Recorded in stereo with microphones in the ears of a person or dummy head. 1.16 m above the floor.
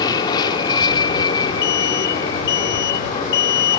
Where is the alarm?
55° left (ahead or behind).